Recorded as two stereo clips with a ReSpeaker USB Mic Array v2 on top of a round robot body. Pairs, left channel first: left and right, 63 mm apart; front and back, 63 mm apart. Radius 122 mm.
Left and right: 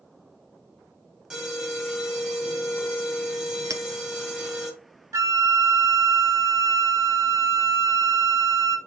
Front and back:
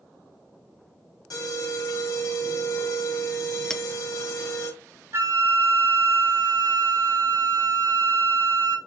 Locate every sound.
1.3 s an alarm: 15° right, 4 m
3.7 s a clink: 80° right, 0.9 m
5.1 s a flute: 130° right, 0.7 m